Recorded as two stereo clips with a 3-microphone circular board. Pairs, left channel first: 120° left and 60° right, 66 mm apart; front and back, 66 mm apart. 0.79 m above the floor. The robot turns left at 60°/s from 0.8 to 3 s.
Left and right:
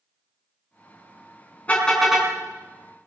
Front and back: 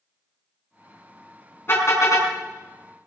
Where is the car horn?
55° left, 4 m; by 2.3 s 15° left, 4 m.